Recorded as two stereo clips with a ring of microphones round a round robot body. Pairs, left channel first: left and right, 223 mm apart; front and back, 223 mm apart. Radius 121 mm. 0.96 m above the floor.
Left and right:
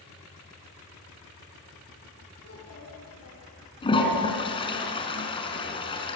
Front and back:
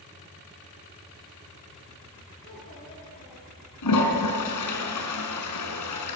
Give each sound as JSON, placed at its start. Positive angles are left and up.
{"t": 2.4, "sound": "a child speaking", "azimuth_deg": 70, "distance_m": 7.5}
{"t": 3.8, "sound": "a toilet flushing", "azimuth_deg": 20, "distance_m": 5.0}